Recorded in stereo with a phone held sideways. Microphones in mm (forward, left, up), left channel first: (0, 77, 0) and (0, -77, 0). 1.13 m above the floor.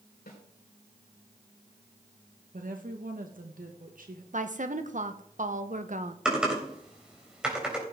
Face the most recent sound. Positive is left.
turn(degrees=-5)  # may be behind; listen again after turning